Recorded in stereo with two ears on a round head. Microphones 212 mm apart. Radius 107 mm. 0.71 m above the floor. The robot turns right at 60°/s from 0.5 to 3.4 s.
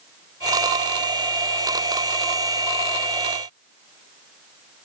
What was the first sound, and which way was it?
Only background noise.